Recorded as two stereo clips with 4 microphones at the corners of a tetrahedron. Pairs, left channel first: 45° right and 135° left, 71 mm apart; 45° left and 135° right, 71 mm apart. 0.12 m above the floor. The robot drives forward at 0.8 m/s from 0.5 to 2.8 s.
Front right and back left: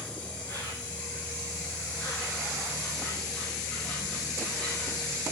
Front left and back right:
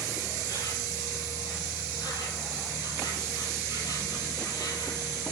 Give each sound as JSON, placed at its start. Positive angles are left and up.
{"t": 0.0, "sound": "an insect", "azimuth_deg": 25, "distance_m": 7.0}